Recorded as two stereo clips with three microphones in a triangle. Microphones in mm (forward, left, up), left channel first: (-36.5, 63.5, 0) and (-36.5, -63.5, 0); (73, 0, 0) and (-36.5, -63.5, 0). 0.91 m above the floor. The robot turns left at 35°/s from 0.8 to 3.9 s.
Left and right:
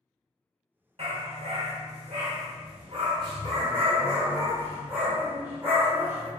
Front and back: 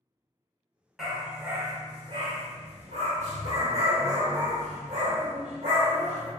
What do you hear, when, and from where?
1.0 s a dog barking: 65° right, 0.9 m; by 6.3 s 165° right, 0.9 m